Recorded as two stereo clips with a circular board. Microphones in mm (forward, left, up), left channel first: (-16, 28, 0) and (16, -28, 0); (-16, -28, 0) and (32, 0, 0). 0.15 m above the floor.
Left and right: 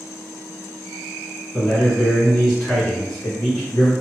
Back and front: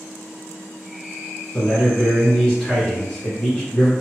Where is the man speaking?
170° right, 1.3 m.